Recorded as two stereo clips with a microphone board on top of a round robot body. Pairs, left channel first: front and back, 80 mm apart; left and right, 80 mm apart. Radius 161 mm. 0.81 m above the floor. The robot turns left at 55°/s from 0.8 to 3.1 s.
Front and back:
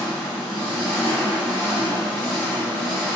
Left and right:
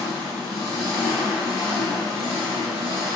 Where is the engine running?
100° left, 1.1 m; by 3.2 s 25° right, 1.1 m.